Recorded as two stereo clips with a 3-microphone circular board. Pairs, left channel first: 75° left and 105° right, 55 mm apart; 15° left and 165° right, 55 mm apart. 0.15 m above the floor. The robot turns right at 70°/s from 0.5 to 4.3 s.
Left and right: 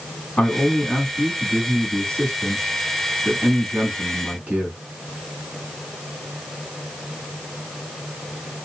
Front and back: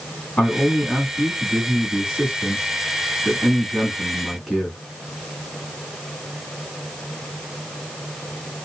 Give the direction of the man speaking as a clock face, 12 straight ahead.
11 o'clock.